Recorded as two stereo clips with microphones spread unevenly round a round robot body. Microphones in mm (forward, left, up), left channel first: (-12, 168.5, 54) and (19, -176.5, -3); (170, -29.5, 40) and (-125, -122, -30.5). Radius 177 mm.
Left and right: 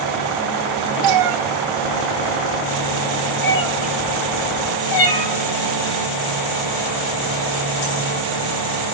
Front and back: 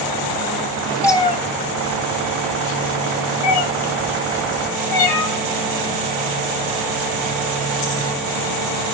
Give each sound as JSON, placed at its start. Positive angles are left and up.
{"t": 1.0, "sound": "a cat meowing", "azimuth_deg": -70, "distance_m": 1.4}